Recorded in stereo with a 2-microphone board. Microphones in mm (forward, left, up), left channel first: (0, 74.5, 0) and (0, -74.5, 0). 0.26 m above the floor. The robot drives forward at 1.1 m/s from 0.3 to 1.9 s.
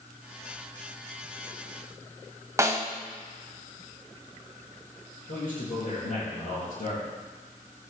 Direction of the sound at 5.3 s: 65° left (ahead or behind).